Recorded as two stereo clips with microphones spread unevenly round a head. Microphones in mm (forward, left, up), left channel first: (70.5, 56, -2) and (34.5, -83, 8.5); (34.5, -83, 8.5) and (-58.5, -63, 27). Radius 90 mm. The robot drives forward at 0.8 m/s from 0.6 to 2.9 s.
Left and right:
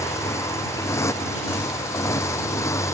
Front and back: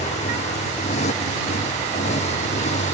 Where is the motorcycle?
5° left.